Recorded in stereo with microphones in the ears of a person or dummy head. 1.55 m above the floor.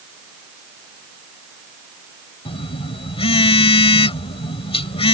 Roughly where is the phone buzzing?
Left.